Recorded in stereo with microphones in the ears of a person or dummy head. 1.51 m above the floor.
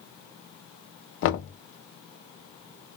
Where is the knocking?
70° left (ahead or behind), 0.6 m.